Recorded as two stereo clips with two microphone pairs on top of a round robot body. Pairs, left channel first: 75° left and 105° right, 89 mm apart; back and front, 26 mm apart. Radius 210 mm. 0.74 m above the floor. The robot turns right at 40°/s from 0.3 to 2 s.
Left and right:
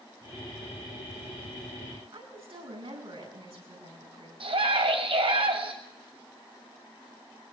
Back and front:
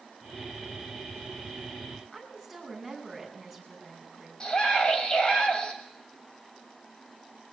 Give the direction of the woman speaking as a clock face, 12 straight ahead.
3 o'clock.